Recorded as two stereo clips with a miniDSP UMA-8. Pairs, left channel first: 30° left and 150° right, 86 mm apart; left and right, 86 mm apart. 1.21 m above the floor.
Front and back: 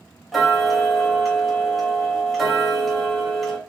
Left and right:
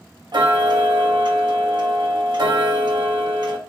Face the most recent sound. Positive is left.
turn(degrees=-60)